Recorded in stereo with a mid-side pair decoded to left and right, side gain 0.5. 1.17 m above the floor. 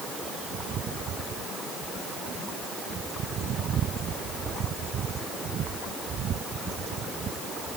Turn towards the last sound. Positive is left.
No sound to turn to.